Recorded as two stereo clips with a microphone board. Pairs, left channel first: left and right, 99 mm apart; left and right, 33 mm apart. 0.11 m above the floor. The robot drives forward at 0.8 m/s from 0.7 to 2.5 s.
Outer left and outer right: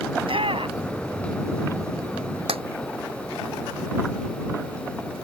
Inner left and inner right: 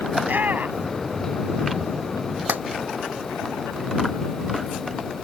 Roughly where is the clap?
Right.